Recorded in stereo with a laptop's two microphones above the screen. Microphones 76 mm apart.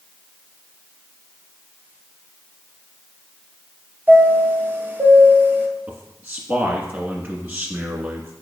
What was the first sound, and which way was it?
A chime, 25° right (ahead or behind).